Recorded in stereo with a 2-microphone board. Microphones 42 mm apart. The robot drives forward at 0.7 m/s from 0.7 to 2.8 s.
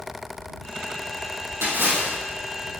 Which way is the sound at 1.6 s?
60° right (ahead or behind).